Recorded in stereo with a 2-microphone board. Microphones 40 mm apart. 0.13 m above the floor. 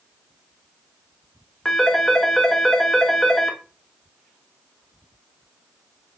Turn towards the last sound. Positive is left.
turn(degrees=10)  # may be behind; listen again after turning